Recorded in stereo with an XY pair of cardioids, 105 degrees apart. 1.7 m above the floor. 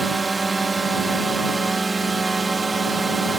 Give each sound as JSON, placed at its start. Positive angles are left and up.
{"t": 0.0, "sound": "a drone", "azimuth_deg": -25}